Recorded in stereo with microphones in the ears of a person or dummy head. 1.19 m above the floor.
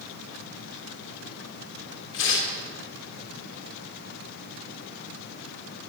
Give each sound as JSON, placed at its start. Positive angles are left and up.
{"t": 2.1, "sound": "tearing paper", "side_deg": 75, "distance_m": 1.5}